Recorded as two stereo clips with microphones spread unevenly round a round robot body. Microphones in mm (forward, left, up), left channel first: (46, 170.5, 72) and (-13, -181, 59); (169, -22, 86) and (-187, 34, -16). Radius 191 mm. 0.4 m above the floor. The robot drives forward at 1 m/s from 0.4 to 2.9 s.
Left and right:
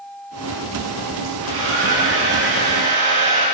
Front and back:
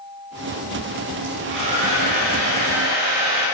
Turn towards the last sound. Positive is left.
turn(degrees=-160)